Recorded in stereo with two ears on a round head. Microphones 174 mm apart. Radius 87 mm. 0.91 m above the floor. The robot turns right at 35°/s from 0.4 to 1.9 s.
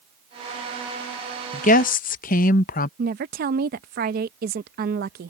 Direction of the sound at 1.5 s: 40° left (ahead or behind).